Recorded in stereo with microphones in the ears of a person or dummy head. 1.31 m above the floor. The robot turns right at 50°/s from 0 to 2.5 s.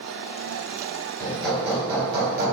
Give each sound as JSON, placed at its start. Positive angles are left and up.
{"t": 1.2, "sound": "hammering", "azimuth_deg": 165, "distance_m": 3.5}